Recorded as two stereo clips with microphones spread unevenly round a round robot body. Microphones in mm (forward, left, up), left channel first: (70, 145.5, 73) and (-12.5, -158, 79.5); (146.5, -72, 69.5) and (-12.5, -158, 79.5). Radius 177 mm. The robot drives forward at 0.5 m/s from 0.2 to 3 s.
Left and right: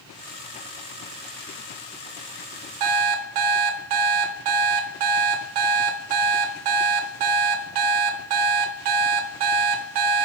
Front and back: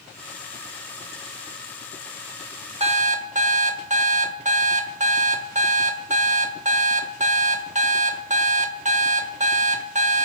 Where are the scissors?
I don't hear scissors.